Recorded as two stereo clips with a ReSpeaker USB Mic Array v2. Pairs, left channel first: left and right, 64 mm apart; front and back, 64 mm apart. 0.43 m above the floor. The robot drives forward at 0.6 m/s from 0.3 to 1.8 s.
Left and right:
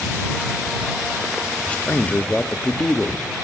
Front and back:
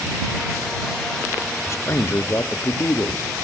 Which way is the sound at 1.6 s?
25° left.